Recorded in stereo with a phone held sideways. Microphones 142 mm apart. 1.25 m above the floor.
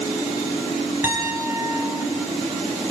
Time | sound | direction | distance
1.0 | a piano | 15° right (ahead or behind) | 7 m